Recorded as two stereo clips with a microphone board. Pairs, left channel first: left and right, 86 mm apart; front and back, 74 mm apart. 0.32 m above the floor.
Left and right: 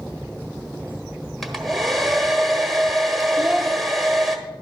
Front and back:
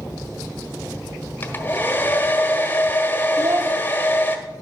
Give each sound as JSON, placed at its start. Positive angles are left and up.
{"t": 1.4, "sound": "a hair dryer", "azimuth_deg": 0, "distance_m": 1.2}
{"t": 3.4, "sound": "a child speaking", "azimuth_deg": -175, "distance_m": 0.5}